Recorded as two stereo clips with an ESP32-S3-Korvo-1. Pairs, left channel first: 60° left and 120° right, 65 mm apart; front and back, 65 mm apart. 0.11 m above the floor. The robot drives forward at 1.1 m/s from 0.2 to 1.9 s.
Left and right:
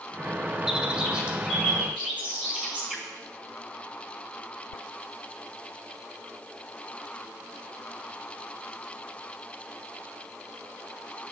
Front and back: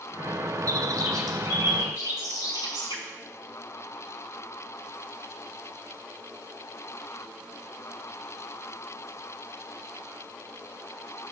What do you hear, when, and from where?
0.7 s a bird: 160° left, 1.1 m; by 3.0 s 170° left, 2.5 m